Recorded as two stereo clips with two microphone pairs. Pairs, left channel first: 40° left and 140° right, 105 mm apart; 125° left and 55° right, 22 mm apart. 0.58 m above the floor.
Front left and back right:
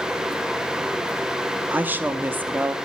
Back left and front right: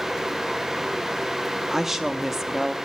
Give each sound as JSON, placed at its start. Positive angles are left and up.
{"t": 1.7, "sound": "a woman speaking", "azimuth_deg": -105, "distance_m": 0.6}